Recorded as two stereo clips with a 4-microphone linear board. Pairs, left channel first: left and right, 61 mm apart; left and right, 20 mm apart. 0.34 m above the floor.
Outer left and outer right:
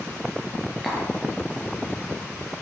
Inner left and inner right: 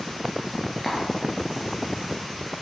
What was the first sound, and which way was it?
Tapping, 5° right (ahead or behind).